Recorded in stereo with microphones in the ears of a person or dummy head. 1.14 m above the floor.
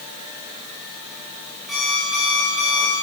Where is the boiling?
No boiling in this recording.